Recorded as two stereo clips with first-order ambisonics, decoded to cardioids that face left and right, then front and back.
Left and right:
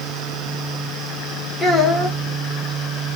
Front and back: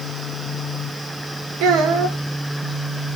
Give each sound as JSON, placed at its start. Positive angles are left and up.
{"t": 1.6, "sound": "a child speaking", "azimuth_deg": 165, "distance_m": 1.3}